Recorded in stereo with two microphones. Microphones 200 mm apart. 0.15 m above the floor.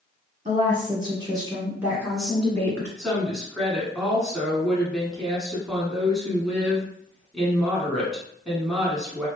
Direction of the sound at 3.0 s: Centre (ahead or behind).